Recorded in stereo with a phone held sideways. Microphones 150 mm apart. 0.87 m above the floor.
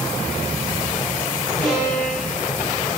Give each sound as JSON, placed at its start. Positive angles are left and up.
{"t": 1.6, "sound": "a violin", "side_deg": 5, "distance_m": 5.5}